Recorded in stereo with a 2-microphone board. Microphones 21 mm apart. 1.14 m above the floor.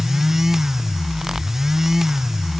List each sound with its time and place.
Only background noise.